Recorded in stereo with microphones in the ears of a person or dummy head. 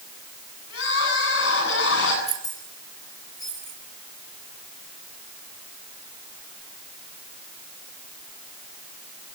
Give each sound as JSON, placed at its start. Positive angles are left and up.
{"t": 0.7, "sound": "crying", "side_deg": 90, "distance_m": 8.5}
{"t": 2.3, "sound": "keys jangling", "side_deg": 40, "distance_m": 3.5}